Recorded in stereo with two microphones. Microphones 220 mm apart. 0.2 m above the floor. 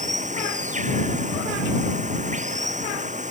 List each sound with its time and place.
0.0 s running water: 30° right (ahead or behind)